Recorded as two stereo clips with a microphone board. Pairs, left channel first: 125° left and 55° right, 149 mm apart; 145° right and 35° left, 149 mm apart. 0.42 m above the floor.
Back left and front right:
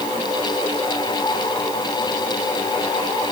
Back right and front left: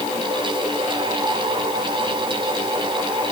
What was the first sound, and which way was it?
Only background noise.